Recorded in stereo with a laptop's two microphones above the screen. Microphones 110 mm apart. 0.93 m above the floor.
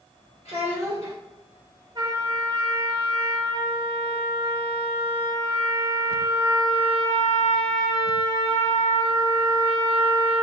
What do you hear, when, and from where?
0.5 s a child speaking: 65° left (ahead or behind), 1.3 m
1.9 s a trumpet: 30° right (ahead or behind), 0.9 m